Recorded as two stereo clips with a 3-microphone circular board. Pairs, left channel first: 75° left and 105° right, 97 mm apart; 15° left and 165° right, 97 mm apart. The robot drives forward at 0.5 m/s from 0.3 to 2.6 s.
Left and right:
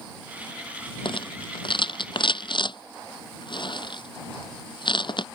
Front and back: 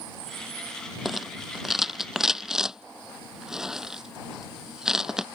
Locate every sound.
1.1 s a rattle: 105° left; by 5.2 s 110° left